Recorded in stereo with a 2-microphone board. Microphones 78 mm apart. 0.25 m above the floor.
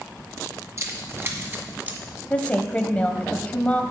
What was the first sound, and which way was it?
Keys jangling, 40° right (ahead or behind).